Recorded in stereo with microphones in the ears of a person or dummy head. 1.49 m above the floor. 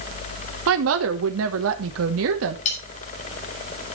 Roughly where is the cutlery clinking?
Left.